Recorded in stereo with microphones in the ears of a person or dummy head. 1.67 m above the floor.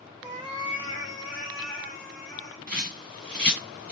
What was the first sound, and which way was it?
A cat meowing, 20° right (ahead or behind).